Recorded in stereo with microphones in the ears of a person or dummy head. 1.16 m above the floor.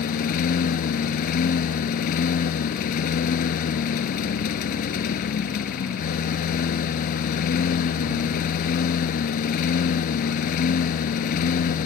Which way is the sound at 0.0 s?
50° left (ahead or behind).